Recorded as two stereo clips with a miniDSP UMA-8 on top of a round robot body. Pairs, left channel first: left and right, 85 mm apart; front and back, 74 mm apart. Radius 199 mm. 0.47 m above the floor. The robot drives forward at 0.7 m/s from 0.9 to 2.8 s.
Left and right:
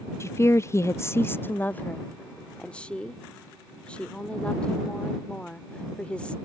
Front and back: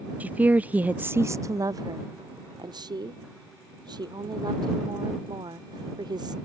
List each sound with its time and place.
0.2 s a woman speaking: 125° left; by 6.3 s 165° left